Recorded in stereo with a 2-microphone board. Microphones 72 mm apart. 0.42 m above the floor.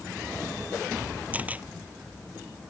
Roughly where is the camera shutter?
Right.